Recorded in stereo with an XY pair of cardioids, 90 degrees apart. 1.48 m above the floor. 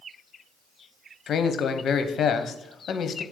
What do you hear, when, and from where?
1.3 s a man speaking: 65° left, 0.9 m